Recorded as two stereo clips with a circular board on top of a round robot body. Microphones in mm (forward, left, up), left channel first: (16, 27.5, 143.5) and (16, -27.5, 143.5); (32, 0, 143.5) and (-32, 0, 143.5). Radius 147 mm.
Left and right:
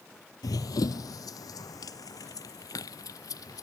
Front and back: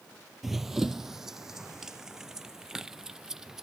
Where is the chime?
I don't hear a chime.